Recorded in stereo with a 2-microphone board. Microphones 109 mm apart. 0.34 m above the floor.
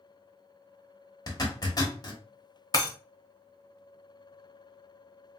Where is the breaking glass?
35° left (ahead or behind), 0.8 m.